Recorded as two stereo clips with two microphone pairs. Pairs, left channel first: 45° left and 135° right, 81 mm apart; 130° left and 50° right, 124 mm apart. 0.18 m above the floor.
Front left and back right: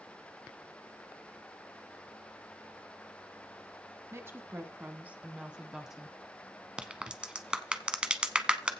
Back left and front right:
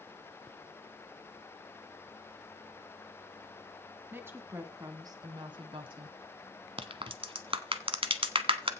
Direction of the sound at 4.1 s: 115° right.